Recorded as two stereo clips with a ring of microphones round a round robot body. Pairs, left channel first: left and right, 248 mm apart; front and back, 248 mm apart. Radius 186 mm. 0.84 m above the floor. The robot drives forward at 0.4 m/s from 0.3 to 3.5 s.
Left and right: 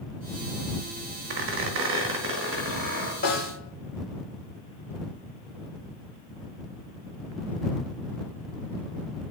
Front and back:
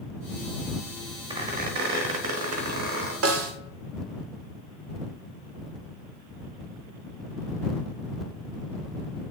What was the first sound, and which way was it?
A squeak, 110° right.